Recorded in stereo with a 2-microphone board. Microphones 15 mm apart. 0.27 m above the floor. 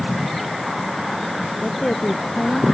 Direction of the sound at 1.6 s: 70° left (ahead or behind).